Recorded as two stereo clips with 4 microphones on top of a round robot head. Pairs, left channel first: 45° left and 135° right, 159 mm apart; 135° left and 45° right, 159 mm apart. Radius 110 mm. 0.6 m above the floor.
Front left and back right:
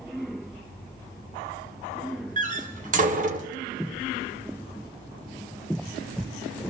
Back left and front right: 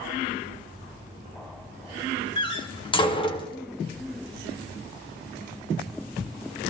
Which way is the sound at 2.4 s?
170° right.